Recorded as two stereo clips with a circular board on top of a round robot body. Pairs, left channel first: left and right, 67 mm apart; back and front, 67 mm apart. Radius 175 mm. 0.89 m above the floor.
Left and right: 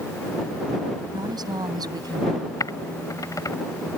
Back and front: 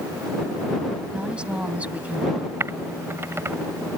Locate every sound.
1.1 s a woman speaking: 75° right; by 2.5 s 70° right
2.6 s typing on a keyboard: 55° left